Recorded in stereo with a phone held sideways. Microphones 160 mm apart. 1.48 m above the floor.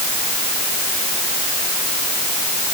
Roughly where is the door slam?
I don't hear a door slam.